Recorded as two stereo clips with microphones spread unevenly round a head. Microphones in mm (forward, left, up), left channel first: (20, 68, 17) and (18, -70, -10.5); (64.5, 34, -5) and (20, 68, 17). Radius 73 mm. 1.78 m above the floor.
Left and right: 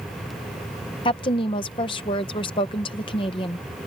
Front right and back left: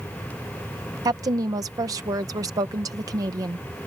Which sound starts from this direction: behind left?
A woman speaking, at 1.1 s.